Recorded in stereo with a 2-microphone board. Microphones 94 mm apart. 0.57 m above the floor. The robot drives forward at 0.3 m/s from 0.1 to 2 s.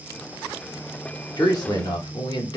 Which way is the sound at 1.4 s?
45° left (ahead or behind).